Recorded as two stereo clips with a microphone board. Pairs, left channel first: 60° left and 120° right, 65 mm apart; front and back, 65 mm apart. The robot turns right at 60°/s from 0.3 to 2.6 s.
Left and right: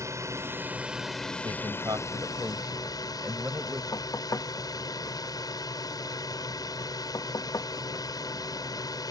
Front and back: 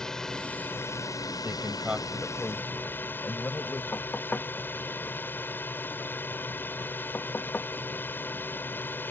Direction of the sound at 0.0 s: 80° right.